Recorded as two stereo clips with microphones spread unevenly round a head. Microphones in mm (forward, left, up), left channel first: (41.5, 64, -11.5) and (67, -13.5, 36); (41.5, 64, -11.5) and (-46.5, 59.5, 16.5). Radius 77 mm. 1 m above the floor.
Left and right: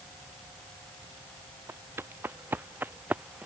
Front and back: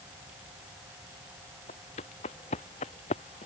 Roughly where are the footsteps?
Ahead.